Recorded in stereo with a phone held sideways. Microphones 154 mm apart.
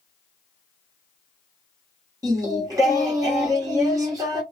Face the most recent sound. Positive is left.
turn(degrees=-20)  # may be behind; listen again after turning